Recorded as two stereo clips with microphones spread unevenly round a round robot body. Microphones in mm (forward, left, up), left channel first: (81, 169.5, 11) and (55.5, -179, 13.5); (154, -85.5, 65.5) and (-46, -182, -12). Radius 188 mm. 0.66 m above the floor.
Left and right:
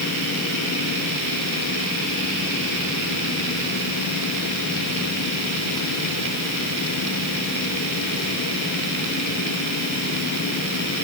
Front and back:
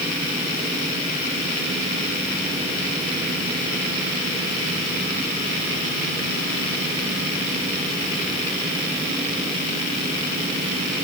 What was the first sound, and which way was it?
Only background noise.